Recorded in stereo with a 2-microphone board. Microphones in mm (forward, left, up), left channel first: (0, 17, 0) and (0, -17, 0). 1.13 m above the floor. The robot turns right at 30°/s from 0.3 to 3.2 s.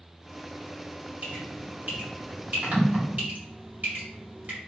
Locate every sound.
1.2 s dripping: 45° right (ahead or behind), 2 m; by 4.6 s 65° right (ahead or behind), 2 m